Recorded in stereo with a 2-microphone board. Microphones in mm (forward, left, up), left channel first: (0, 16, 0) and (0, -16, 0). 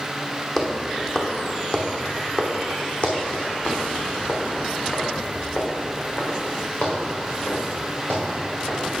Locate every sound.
0.6 s footsteps: 5° left (ahead or behind), 1.8 m; by 8.9 s 70° left (ahead or behind), 5 m